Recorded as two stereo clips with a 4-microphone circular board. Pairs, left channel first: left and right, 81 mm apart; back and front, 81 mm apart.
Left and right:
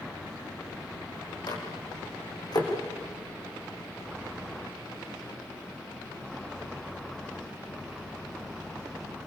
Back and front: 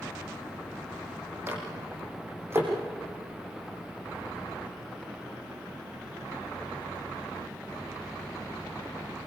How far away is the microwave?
About 6 m.